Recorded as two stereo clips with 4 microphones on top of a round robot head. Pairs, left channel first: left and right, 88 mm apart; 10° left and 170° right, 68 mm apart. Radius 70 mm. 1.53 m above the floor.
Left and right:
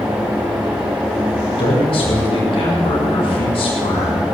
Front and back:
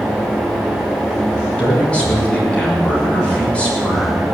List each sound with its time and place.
1.6 s a man speaking: 80° left, 6.5 m